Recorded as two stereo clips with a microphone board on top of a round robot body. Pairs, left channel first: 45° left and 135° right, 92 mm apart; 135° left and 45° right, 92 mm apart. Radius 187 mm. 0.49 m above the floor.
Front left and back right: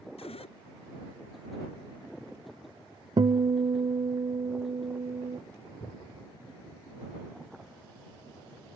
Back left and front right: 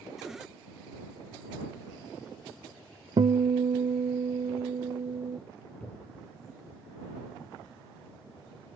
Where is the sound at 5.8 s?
60° left.